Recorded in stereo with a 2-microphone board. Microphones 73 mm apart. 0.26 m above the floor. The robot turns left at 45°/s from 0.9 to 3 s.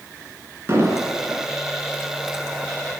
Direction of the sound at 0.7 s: 40° right (ahead or behind).